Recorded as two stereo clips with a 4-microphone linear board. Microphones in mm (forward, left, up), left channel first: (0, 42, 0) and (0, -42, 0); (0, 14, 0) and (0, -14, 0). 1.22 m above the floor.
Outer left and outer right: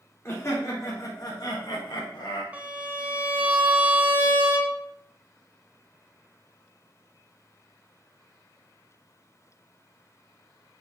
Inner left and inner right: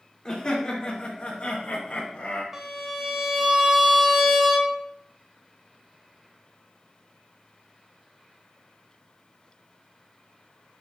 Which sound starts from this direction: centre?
A violin, at 2.5 s.